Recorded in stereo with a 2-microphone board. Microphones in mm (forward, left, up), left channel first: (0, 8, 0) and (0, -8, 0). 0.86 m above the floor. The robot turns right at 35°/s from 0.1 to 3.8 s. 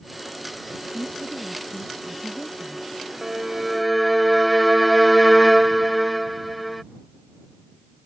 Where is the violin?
30° right (ahead or behind); by 6.8 s 5° right (ahead or behind).